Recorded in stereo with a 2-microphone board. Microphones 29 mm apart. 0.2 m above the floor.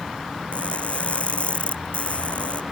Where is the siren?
I don't hear a siren.